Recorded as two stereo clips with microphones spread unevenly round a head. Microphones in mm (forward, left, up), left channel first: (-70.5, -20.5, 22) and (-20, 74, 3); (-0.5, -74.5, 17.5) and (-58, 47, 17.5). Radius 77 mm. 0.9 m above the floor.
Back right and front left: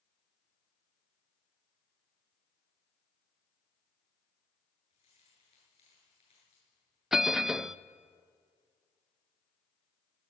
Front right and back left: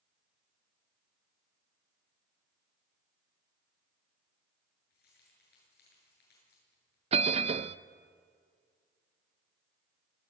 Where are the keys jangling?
65° right, 8.5 m.